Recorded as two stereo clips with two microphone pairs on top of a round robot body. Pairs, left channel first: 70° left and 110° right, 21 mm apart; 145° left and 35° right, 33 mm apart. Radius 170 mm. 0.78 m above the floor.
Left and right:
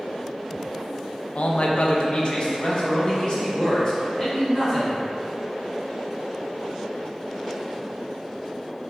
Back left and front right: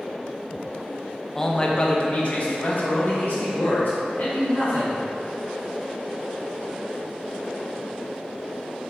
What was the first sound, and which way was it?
A man speaking, 75° left.